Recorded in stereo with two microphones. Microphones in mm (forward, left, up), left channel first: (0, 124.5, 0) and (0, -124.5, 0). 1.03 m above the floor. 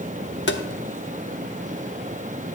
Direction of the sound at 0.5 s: 50° left (ahead or behind).